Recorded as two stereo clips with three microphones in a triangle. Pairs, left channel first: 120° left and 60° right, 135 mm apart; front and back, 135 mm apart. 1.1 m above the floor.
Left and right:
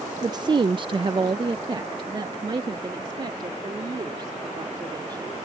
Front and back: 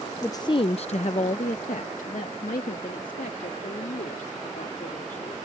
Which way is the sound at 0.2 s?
50° right.